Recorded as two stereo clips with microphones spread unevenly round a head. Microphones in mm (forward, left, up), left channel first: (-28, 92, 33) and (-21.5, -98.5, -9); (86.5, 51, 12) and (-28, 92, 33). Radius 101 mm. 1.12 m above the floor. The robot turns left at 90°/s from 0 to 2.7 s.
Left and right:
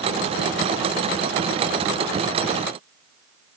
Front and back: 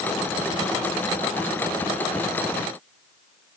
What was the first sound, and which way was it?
Only background noise.